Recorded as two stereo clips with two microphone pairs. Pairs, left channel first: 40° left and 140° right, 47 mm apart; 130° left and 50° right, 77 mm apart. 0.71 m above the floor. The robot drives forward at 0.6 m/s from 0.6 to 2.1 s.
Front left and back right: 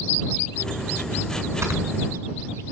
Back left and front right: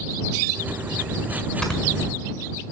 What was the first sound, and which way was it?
Snoring, 155° right.